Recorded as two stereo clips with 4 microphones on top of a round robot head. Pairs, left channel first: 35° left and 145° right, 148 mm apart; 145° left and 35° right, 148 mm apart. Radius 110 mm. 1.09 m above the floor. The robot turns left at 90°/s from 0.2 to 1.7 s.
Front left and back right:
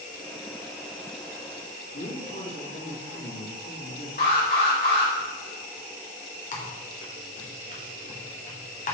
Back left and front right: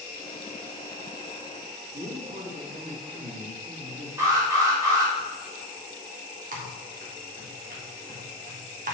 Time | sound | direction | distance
1.9 | a man speaking | 10° left | 2.5 m
4.2 | an alarm | 35° left | 3 m
6.5 | typing on a keyboard | 5° right | 1.4 m